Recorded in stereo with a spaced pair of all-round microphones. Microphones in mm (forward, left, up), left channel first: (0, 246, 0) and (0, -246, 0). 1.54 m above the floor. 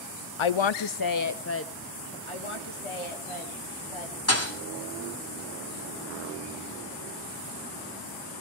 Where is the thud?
30° left (ahead or behind), 2 m.